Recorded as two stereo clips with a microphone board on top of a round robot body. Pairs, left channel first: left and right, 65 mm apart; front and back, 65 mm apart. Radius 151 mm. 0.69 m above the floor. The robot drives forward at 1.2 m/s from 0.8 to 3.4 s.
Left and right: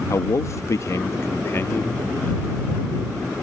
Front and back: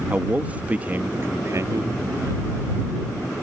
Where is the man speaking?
115° left; by 2.4 s 155° left.